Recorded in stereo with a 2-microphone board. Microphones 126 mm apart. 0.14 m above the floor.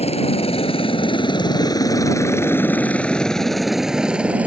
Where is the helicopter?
55° left (ahead or behind); by 4.5 s 10° right (ahead or behind).